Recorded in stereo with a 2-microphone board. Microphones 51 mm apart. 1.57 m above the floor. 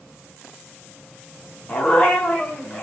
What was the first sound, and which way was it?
A dog barking, 25° left (ahead or behind).